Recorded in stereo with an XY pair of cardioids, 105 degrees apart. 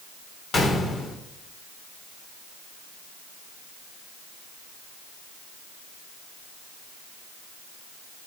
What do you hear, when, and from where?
0.5 s a gunshot: 40° left, 2 m